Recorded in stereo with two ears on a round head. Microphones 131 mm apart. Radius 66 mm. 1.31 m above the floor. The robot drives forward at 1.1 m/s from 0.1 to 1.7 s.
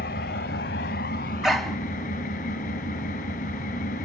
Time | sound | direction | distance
0.0 | an engine running | 65° left (ahead or behind) | 2.5 m
1.4 | a dog barking | centre (ahead or behind) | 1.1 m